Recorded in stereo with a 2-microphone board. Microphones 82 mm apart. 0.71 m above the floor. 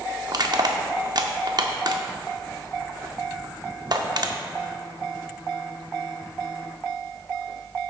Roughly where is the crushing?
Right.